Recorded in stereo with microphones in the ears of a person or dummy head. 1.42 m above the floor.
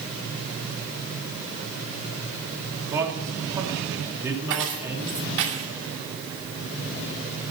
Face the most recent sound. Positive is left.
turn(degrees=-75)  # may be behind; listen again after turning